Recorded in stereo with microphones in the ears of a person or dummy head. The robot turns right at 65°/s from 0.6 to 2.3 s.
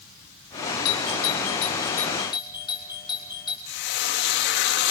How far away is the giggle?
No giggle in this recording.